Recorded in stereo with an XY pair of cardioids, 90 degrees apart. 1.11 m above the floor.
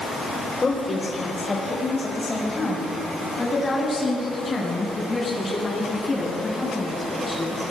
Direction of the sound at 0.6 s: 30° left.